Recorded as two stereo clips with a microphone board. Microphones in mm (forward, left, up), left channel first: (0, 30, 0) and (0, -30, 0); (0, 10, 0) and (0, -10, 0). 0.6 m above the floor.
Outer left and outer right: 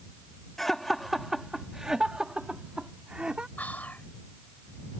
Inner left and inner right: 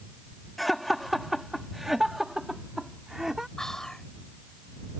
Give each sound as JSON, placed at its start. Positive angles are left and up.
{"t": 0.6, "sound": "laughter", "side_deg": 5}
{"t": 3.6, "sound": "whispering", "side_deg": 30}